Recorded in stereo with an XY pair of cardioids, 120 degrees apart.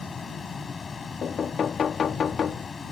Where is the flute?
No flute in this recording.